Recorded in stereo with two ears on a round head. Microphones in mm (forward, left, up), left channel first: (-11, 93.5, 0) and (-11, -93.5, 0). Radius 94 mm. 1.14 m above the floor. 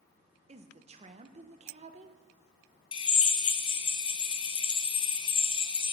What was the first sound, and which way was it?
A woman speaking, 35° right (ahead or behind).